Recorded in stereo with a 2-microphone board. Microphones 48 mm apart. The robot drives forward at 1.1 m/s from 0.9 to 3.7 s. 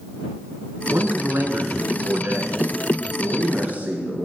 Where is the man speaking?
50° right (ahead or behind), 2.5 m; by 4.3 s 35° right (ahead or behind), 3.5 m.